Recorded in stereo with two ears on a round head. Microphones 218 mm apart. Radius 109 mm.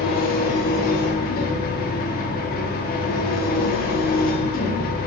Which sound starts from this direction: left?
An engine running, at 0.0 s.